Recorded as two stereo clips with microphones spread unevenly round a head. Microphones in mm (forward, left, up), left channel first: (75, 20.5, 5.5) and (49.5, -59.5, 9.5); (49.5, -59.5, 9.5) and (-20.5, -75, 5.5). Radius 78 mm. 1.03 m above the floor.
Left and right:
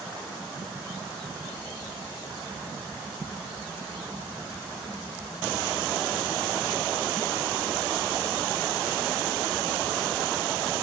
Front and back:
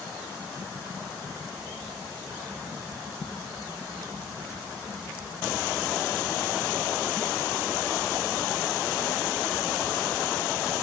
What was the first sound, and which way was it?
Only background noise.